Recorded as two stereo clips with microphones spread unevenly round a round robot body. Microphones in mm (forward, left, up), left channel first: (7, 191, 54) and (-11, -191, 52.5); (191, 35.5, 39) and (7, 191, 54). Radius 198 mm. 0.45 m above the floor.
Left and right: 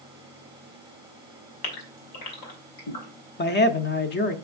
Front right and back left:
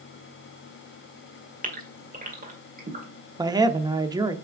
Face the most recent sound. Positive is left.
turn(degrees=80)